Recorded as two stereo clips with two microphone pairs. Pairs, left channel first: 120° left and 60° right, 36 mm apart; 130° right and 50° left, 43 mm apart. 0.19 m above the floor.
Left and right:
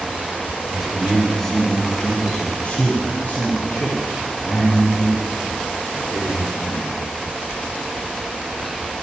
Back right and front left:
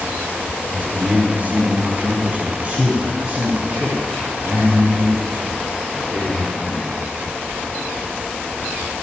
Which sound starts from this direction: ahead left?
A man speaking, at 0.7 s.